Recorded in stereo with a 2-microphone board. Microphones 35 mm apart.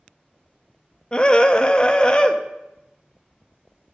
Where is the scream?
25° left (ahead or behind), 0.5 m.